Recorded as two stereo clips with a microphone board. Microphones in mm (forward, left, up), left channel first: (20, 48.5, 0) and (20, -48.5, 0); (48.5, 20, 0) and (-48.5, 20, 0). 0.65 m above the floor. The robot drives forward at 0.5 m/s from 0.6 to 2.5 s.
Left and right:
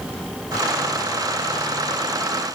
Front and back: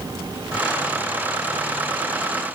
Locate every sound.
Only background noise.